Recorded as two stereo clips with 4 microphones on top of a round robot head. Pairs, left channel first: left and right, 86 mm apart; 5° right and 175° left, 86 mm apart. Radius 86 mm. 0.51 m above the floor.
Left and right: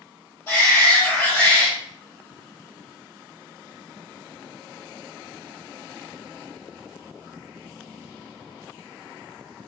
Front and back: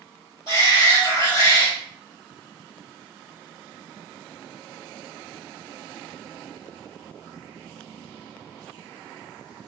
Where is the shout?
20° left, 1.9 m.